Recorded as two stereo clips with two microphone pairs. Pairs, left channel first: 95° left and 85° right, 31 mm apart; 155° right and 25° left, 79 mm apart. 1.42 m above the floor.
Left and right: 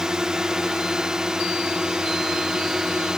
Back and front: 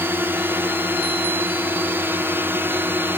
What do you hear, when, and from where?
0.0 s a drone: 25° right